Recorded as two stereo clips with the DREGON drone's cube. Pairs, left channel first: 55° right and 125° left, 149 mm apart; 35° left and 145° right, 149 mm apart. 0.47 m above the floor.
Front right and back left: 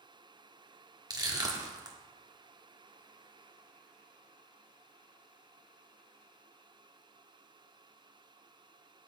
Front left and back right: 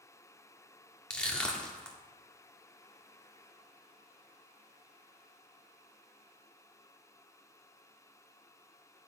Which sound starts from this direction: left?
Crushing, at 1.1 s.